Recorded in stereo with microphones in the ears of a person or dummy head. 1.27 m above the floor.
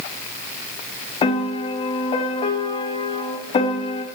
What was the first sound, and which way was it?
A piano, 35° left (ahead or behind).